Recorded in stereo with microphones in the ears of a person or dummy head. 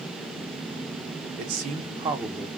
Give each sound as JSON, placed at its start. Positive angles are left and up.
{"t": 1.4, "sound": "a man speaking", "side_deg": -55, "distance_m": 0.8}